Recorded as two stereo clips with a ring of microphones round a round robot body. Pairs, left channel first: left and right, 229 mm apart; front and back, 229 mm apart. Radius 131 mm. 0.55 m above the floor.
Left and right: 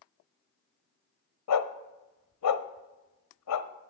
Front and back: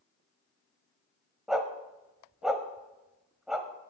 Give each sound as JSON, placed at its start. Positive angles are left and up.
{"t": 1.5, "sound": "a dog barking", "azimuth_deg": 90, "distance_m": 1.0}